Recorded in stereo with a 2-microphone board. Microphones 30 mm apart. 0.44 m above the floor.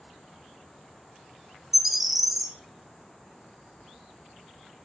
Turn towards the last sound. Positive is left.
turn(degrees=-5)  # may be behind; listen again after turning